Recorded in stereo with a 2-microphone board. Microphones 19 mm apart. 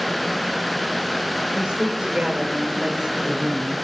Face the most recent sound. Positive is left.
turn(degrees=-55)  # may be behind; listen again after turning